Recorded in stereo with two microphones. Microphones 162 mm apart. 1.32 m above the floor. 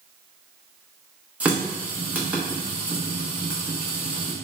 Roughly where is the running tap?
Centre.